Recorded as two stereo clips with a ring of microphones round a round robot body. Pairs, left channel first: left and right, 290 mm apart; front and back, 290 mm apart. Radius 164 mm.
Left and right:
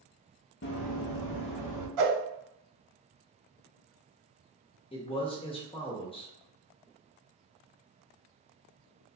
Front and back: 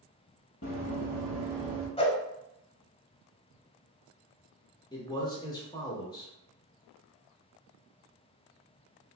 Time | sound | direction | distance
0.6 | running footsteps | 50° left | 0.6 m
2.0 | a whoosh | 70° right | 0.7 m
4.9 | a man speaking | 55° left | 0.8 m